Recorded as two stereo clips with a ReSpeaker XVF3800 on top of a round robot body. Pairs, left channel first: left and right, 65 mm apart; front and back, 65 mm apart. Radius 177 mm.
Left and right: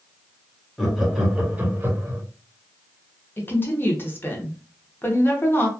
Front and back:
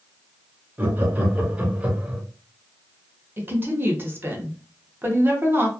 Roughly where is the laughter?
Behind.